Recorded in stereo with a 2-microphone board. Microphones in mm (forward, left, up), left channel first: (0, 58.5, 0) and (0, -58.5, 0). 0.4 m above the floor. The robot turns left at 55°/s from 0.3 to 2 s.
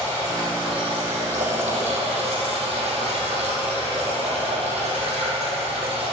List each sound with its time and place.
0.0 s running water: 30° right, 4 m; by 6.1 s 120° right, 4 m